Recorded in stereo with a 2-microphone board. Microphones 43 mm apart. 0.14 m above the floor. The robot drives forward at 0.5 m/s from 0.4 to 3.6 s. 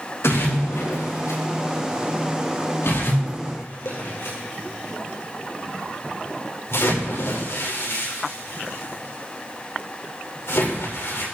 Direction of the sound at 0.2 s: 85° left.